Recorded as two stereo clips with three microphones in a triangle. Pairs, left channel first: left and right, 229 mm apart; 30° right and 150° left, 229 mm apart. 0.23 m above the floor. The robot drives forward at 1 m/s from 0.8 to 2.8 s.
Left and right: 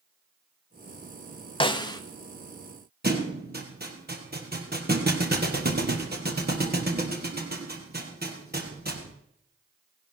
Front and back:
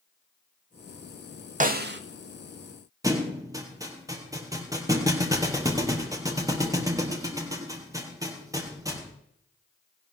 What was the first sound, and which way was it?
A snare drum, 135° left.